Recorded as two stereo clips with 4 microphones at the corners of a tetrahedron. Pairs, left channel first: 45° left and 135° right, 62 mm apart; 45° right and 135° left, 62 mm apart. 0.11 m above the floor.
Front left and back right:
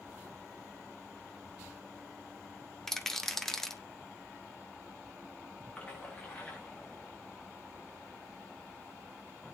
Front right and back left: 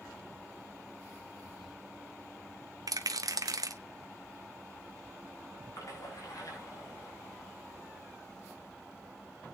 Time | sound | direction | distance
1.4 | a toilet flushing | 75° right | 9.5 m
2.9 | a rattle | 130° left | 0.9 m
5.8 | a splash | 25° right | 6 m